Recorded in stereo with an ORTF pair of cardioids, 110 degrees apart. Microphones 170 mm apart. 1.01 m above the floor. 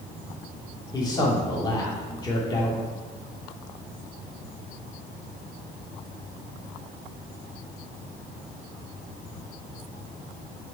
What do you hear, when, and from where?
0.9 s a man speaking: 25° left, 2 m